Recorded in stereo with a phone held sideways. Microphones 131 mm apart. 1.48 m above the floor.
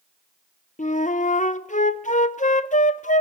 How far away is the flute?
About 0.6 m.